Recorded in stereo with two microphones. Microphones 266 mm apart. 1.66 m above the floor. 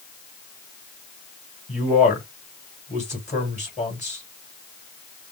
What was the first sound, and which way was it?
A man speaking, 25° left (ahead or behind).